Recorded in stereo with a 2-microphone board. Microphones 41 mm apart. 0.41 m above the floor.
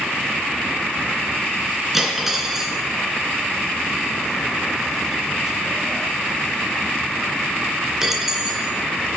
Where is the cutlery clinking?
10° right (ahead or behind), 2.5 m.